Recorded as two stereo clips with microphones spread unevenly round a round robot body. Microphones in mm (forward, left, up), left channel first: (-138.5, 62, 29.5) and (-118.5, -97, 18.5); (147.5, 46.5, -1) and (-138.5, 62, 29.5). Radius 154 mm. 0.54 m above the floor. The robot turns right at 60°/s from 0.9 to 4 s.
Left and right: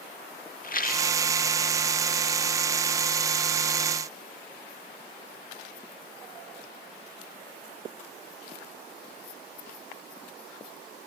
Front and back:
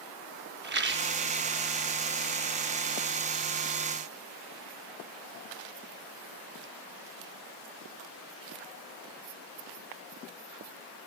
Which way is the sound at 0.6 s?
125° left.